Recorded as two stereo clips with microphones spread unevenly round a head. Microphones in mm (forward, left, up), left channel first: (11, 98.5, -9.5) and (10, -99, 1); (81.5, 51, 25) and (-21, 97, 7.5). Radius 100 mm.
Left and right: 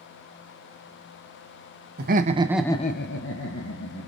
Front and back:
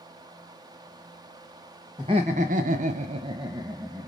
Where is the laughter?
135° right, 0.9 m; by 4.1 s 95° left, 1.6 m.